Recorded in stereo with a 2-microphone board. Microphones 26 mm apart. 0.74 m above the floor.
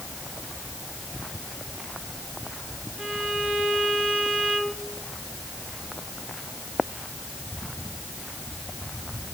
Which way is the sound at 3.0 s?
50° right (ahead or behind).